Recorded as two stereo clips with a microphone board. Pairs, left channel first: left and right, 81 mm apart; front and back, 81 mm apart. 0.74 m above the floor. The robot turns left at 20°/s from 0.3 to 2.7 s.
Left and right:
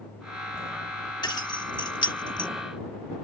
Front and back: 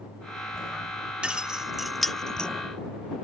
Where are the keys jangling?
105° left; by 2.5 s 80° left.